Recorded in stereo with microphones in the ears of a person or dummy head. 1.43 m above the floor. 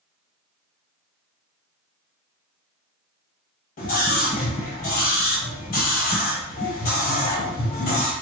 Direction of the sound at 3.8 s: 45° left (ahead or behind).